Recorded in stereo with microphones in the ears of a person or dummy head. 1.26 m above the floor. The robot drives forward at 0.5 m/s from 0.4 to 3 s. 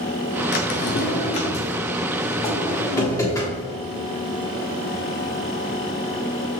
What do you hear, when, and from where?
0.5 s a drawer: 45° left (ahead or behind), 0.6 m; by 3.6 s 15° left (ahead or behind), 1.5 m